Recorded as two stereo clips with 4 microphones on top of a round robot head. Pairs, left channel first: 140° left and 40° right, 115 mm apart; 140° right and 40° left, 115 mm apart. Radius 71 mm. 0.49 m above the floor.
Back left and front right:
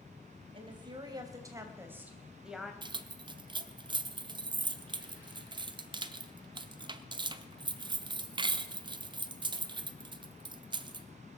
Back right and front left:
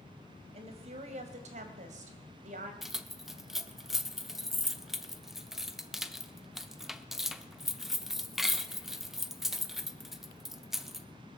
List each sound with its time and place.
0.5 s a woman speaking: 5° left, 2.5 m; by 2.7 s 50° left, 2.5 m
2.8 s keys jangling: 45° right, 0.8 m